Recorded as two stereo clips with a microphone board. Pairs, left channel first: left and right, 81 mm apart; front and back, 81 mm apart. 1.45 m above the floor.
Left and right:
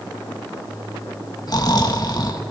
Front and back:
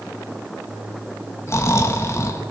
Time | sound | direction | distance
1.5 | snoring | 55° left | 2 m